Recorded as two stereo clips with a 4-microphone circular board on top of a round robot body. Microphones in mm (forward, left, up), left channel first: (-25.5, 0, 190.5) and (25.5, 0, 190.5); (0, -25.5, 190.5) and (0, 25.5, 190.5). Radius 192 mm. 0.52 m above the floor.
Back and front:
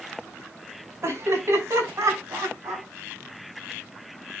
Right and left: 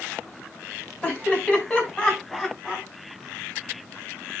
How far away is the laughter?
About 5.5 m.